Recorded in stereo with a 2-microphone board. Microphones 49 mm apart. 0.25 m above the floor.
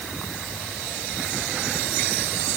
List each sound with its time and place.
Only background noise.